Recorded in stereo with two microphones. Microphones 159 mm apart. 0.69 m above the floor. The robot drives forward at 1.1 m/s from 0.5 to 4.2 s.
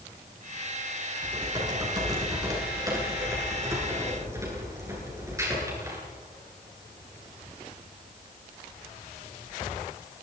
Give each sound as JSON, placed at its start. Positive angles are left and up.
{"t": 1.2, "sound": "typing on a keyboard", "side_deg": -25, "distance_m": 7.5}